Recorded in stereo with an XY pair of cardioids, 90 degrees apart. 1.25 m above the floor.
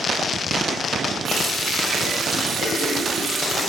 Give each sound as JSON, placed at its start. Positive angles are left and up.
{"t": 1.2, "sound": "a running tap", "azimuth_deg": -70, "distance_m": 6.0}